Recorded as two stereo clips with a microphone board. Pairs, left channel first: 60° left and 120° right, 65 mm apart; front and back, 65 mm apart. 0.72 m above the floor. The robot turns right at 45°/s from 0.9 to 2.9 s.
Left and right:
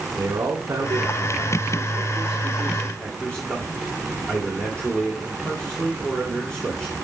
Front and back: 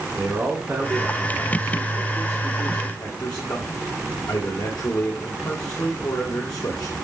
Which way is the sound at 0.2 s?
105° right.